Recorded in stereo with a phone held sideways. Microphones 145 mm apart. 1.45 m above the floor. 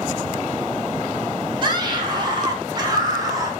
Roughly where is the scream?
Right.